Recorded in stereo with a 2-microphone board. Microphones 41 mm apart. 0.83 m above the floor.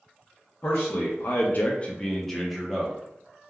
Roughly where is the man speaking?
Left.